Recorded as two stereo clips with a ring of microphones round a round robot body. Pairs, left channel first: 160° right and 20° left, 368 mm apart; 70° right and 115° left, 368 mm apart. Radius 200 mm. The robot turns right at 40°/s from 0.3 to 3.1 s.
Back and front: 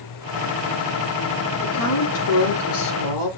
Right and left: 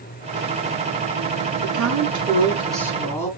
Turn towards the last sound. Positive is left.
turn(degrees=-150)